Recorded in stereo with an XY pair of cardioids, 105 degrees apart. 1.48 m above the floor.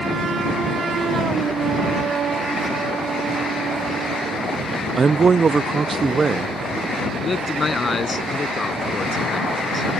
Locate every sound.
5.0 s a man speaking: 35° right
7.2 s a man speaking: 30° left